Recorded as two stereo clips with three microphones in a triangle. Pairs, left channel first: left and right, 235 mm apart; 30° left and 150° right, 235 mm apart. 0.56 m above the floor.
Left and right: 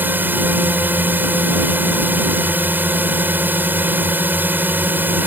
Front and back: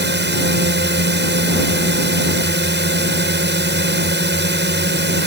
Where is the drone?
170° right.